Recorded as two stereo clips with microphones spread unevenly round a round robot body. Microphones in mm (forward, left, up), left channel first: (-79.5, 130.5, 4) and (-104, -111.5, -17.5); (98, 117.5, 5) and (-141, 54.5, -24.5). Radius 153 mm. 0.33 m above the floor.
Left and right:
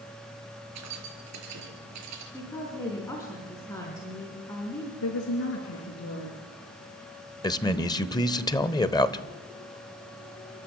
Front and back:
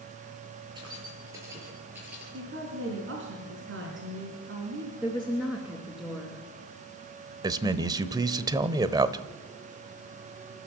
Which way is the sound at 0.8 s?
90° right.